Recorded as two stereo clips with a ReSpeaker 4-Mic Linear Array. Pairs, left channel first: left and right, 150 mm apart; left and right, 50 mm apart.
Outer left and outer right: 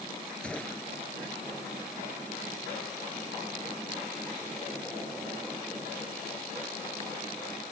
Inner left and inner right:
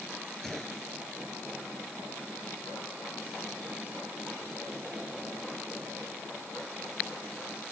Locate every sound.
0.4 s a gunshot: 5° left (ahead or behind)